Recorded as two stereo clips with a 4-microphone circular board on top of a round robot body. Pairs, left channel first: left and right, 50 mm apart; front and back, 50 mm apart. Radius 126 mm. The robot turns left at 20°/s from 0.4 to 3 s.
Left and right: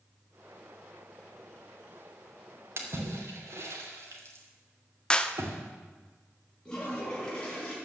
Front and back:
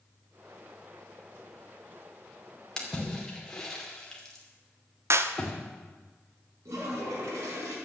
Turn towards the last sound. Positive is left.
turn(degrees=165)